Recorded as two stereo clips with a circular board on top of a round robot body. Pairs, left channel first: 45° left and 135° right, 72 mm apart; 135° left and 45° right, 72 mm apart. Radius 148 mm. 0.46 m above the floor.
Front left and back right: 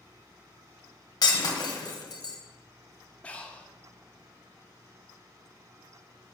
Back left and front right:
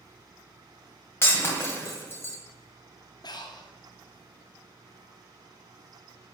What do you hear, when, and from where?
1.2 s breaking glass: 75° left, 1.7 m
3.2 s breathing: 115° left, 1.0 m